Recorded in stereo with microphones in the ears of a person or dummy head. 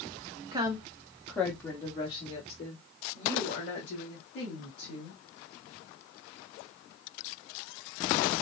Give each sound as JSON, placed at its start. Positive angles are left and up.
{"t": 0.5, "sound": "a woman speaking", "side_deg": -25, "distance_m": 0.7}